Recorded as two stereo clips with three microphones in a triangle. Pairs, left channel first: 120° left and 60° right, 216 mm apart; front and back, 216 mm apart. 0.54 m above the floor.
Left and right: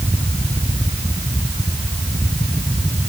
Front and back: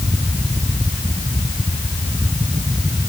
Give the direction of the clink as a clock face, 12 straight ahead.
I don't hear a clink.